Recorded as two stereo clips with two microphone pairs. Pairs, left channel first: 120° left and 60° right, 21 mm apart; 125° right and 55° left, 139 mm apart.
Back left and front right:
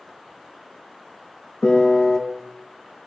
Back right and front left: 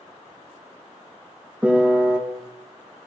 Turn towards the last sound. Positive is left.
turn(degrees=130)